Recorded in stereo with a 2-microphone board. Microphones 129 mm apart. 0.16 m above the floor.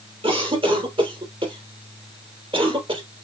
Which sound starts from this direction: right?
A cough, at 0.2 s.